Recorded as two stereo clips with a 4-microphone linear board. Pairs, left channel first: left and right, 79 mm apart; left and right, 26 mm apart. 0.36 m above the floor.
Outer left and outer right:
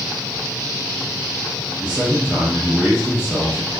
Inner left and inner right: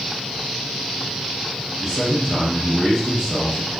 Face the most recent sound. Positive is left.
turn(degrees=-10)  # may be behind; listen again after turning